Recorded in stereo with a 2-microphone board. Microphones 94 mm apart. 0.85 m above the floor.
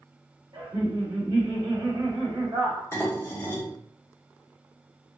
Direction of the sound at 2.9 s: 25° left (ahead or behind).